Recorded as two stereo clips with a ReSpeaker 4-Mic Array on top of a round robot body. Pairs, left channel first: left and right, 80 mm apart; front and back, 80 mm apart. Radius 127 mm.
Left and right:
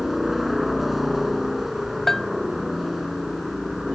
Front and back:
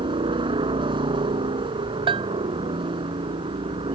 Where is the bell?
175° left.